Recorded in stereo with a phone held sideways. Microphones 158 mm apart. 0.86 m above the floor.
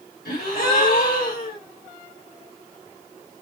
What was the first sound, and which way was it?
A gasp, 80° left.